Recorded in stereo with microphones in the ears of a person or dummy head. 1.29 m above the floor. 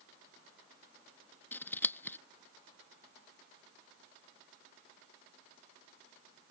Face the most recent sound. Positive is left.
turn(degrees=10)  # may be behind; listen again after turning